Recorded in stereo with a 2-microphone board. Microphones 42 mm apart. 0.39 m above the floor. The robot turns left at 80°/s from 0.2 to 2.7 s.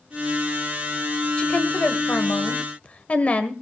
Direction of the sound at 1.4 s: 155° left.